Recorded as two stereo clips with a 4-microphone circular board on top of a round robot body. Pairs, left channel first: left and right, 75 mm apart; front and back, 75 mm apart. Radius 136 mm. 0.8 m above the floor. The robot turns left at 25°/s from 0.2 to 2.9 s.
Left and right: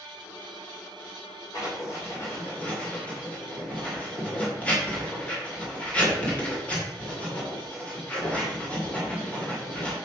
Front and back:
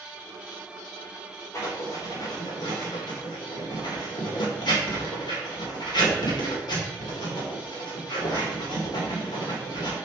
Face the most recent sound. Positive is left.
turn(degrees=15)